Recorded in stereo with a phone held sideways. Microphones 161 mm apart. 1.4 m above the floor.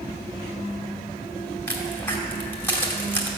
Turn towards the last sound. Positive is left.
turn(degrees=15)  # may be behind; listen again after turning